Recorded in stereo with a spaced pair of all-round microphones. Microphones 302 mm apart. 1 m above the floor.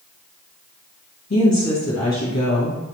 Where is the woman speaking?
60° left (ahead or behind), 1.4 m.